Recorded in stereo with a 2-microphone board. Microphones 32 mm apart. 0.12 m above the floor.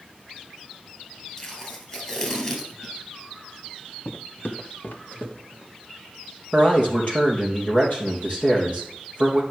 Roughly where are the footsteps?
Left.